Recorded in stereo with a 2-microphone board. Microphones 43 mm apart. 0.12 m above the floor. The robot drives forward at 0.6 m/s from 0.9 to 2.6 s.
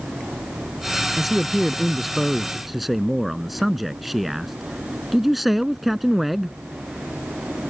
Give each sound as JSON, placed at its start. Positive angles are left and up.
{"t": 1.2, "sound": "a man speaking", "side_deg": -5}